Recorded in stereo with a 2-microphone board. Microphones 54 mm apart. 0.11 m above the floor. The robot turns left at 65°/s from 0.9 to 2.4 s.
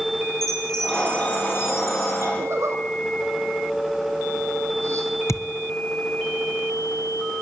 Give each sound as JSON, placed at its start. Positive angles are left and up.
{"t": 0.4, "sound": "a chime", "azimuth_deg": 170, "distance_m": 4.0}
{"t": 2.4, "sound": "a zipper", "side_deg": -55, "distance_m": 4.0}
{"t": 5.3, "sound": "a thud", "side_deg": 65, "distance_m": 0.9}